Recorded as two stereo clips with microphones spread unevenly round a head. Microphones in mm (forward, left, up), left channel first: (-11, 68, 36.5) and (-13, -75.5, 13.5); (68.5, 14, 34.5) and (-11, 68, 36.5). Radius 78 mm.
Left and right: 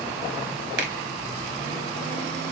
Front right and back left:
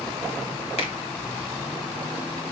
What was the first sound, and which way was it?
A finger snap, 75° right.